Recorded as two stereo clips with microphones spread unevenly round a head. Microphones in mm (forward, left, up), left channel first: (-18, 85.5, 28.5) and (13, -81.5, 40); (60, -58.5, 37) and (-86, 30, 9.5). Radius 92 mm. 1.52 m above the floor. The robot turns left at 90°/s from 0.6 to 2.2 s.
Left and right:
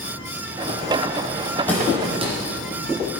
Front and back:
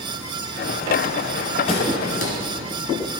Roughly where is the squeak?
Ahead.